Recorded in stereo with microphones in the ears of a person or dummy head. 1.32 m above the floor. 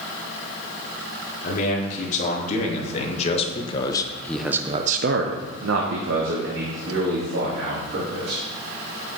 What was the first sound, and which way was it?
A man speaking, 45° left (ahead or behind).